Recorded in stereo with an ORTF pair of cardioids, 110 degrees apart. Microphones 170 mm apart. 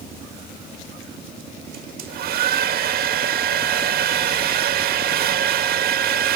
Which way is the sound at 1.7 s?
70° right.